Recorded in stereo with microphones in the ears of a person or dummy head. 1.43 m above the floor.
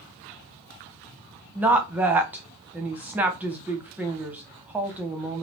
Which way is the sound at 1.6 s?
10° right (ahead or behind).